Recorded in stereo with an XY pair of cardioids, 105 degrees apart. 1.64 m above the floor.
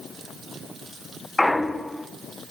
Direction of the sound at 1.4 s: 10° left.